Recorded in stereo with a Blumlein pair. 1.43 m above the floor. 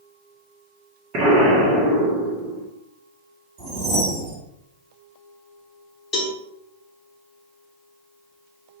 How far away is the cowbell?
About 0.8 m.